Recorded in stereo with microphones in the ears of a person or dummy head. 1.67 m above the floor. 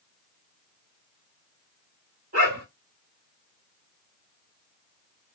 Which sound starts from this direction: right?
A dog barking, at 2.3 s.